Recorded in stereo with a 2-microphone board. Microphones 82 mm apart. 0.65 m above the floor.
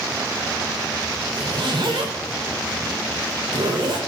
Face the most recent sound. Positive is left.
turn(degrees=-70)  # may be behind; listen again after turning